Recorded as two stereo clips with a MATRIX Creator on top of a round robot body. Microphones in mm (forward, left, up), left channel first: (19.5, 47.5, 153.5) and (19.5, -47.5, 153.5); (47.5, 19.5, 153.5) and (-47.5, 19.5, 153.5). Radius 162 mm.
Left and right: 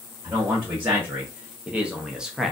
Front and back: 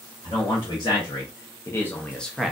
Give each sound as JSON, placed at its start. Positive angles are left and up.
{"t": 0.2, "sound": "a man speaking", "azimuth_deg": -20, "distance_m": 1.3}